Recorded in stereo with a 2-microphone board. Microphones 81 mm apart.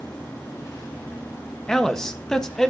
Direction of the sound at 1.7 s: 5° left (ahead or behind).